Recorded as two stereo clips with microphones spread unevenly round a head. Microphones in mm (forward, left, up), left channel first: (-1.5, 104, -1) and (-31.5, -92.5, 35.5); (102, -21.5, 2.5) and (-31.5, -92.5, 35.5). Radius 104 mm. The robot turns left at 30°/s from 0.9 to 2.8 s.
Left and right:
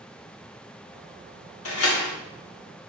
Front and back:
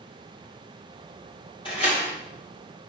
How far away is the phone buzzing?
I don't hear a phone buzzing.